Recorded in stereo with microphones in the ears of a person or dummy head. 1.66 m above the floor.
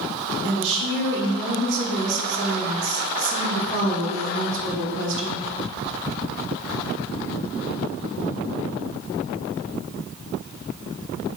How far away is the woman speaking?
About 1.0 m.